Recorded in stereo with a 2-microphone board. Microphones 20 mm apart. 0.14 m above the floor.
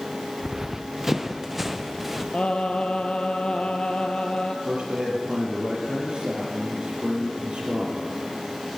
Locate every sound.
0.4 s running footsteps: 30° right (ahead or behind), 0.6 m; by 2.2 s 10° right (ahead or behind), 1.7 m
2.3 s singing: 65° left (ahead or behind), 1.4 m
4.7 s a man speaking: 55° right (ahead or behind), 3.5 m